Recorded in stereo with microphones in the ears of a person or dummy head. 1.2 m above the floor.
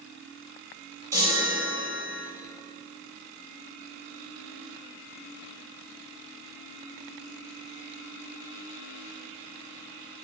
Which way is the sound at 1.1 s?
15° right (ahead or behind).